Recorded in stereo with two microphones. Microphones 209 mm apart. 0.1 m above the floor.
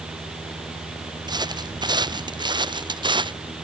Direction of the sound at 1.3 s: 20° right (ahead or behind).